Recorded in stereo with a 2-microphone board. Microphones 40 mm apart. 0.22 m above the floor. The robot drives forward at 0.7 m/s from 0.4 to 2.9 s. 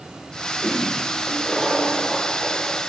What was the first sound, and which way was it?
A toilet flushing, 5° left (ahead or behind).